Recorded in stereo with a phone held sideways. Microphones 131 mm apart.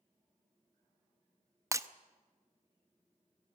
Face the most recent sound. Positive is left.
turn(degrees=-20)  # may be behind; listen again after turning